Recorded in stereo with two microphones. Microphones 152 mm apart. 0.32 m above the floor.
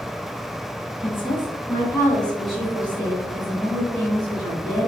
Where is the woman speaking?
40° left (ahead or behind), 1.1 m; by 4.9 s 45° right (ahead or behind), 1.6 m.